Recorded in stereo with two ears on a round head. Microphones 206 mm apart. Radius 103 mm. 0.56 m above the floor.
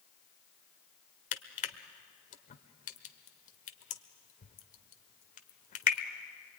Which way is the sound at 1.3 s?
35° left (ahead or behind).